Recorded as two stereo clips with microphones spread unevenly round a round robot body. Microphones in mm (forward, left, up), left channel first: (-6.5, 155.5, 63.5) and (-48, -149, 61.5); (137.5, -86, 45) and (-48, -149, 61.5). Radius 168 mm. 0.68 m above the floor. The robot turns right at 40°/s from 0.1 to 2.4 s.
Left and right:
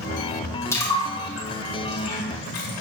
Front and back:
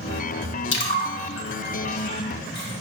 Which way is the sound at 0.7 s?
Straight ahead.